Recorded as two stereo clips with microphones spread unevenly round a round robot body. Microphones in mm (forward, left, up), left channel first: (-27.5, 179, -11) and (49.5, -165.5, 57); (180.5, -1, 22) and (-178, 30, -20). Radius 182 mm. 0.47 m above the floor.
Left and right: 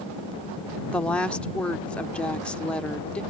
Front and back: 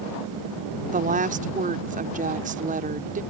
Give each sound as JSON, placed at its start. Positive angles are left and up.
{"t": 0.9, "sound": "a woman speaking", "azimuth_deg": 165}